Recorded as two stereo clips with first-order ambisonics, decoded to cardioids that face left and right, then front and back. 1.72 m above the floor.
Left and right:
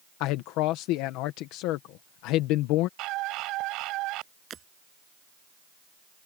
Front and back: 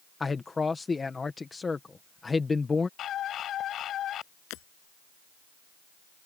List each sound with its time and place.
0.2 s a man speaking: 75° left
3.0 s a scream: 55° right
4.5 s breaking glass: 30° right